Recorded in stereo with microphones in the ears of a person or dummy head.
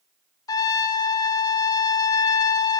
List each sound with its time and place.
0.5 s a trumpet: 20° left (ahead or behind), 0.5 m